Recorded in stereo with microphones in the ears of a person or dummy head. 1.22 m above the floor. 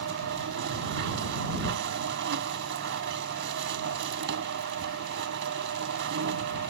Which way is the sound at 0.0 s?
65° right (ahead or behind).